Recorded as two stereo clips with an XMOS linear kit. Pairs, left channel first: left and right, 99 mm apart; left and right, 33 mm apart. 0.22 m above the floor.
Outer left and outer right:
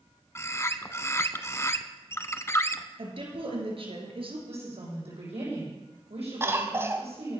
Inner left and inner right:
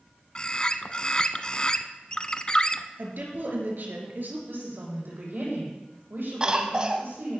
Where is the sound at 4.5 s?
80° right, 8.5 m.